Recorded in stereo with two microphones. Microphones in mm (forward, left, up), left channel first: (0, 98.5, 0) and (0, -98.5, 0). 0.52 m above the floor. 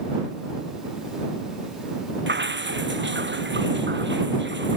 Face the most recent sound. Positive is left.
turn(degrees=-65)  # may be behind; listen again after turning